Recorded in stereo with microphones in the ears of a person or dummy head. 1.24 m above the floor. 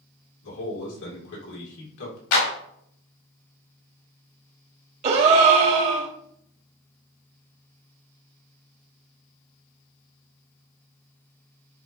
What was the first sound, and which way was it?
A man speaking, 70° left (ahead or behind).